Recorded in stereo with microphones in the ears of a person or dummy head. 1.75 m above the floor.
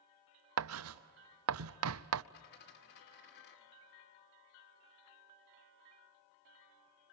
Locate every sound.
0.6 s writing: 80° right, 0.5 m
2.3 s a dropped coin: 55° left (ahead or behind), 2 m